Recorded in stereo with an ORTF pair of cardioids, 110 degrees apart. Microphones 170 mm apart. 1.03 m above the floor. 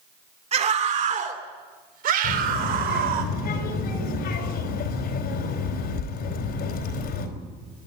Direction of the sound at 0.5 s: 40° right.